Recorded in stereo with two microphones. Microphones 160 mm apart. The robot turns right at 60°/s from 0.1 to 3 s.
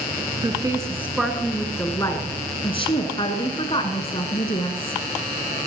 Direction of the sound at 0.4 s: 55° right.